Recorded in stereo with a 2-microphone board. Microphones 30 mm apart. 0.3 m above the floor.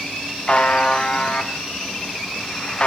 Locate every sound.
0.5 s a buzzer: 40° left (ahead or behind), 0.7 m